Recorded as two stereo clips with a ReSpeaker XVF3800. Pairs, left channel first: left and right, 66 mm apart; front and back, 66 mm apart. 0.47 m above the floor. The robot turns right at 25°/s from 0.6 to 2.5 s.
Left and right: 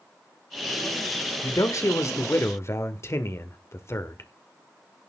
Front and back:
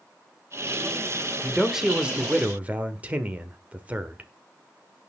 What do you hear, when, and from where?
1.4 s a man speaking: 90° left, 1.2 m; by 4.3 s 115° left, 1.2 m